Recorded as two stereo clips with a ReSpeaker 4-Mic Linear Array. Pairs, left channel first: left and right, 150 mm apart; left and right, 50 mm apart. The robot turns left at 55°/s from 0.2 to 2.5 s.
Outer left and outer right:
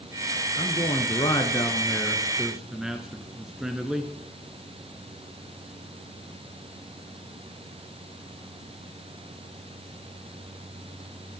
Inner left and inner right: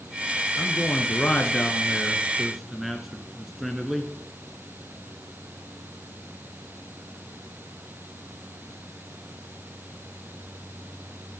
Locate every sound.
0.6 s a man speaking: 100° left, 1.4 m; by 4.0 s 5° right, 1.4 m